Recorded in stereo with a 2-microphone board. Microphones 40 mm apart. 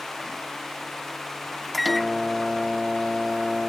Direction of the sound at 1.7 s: Centre (ahead or behind).